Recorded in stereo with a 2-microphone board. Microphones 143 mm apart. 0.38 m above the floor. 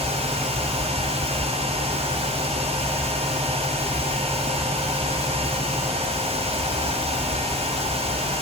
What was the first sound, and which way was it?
Only background noise.